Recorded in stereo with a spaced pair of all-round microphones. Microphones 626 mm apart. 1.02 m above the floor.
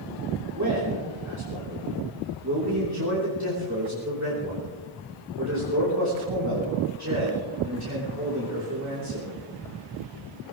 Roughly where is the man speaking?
Right.